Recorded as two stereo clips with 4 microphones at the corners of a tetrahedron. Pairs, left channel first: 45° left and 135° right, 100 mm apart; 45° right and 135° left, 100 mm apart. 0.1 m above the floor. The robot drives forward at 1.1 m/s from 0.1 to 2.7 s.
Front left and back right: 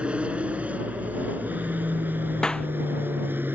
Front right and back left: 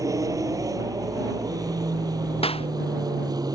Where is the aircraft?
155° left; by 3.6 s 160° left.